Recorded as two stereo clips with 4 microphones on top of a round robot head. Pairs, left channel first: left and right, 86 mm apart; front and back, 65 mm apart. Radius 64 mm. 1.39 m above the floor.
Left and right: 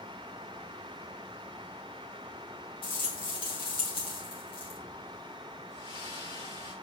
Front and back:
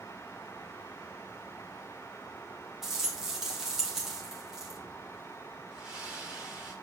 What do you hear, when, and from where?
2.8 s a rattle: 95° left, 4 m
5.7 s a splash: 105° left, 4.5 m